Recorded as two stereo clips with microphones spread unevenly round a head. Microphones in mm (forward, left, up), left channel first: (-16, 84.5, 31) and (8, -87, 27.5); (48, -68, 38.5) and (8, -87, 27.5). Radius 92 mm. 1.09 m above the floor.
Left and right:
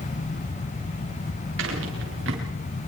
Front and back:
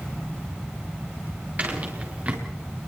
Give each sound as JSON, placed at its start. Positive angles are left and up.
{"t": 1.6, "sound": "footsteps", "azimuth_deg": -100, "distance_m": 7.0}